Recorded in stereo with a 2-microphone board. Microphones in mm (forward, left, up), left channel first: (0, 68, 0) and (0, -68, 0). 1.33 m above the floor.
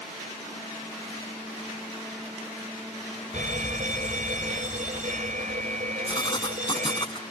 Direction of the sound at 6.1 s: 35° left (ahead or behind).